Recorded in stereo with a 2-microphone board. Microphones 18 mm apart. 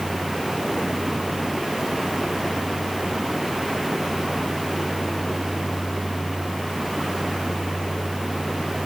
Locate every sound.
Only background noise.